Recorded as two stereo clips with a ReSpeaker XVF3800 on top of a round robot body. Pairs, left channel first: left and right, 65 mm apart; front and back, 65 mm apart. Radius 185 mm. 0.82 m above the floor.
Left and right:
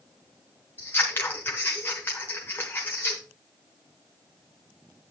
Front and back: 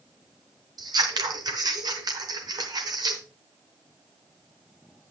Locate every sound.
0.8 s scissors: 155° left, 0.8 m